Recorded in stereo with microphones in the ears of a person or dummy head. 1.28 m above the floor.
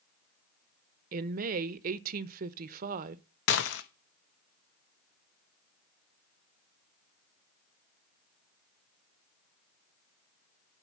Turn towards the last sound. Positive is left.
turn(degrees=65)  # may be behind; listen again after turning